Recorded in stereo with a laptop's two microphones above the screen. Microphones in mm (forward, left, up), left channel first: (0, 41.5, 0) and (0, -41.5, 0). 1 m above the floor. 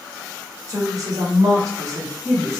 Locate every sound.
0.7 s a woman speaking: 45° right (ahead or behind), 0.9 m; by 2.6 s 25° right (ahead or behind), 0.9 m